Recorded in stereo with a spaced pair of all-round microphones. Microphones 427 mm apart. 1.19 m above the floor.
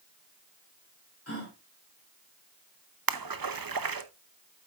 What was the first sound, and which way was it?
A gasp, 35° left (ahead or behind).